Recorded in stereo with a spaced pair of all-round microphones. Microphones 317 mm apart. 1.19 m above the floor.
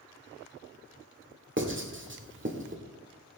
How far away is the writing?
About 1.6 m.